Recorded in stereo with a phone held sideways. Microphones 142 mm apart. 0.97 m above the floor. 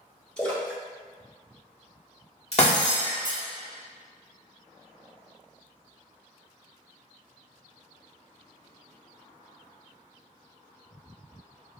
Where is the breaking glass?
50° left (ahead or behind), 1.3 m.